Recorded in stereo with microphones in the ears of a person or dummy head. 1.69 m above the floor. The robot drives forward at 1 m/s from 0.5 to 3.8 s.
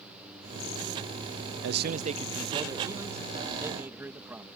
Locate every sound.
1.6 s a man speaking: 70° right (ahead or behind); by 4.5 s 15° right (ahead or behind)